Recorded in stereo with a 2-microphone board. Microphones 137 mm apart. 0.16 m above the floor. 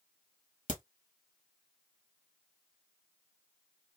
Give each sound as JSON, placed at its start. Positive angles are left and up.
{"t": 0.7, "sound": "a crack", "side_deg": 65, "distance_m": 0.9}